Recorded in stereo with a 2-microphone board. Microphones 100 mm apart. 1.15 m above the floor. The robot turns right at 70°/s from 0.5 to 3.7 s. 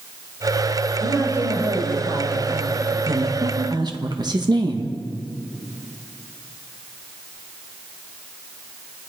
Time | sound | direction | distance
1.0 | a man speaking | straight behind | 4.5 m
3.1 | a woman speaking | 95° right | 1.6 m